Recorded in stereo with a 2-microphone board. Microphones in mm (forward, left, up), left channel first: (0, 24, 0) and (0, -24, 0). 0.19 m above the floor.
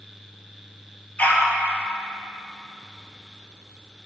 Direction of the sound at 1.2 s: 35° left (ahead or behind).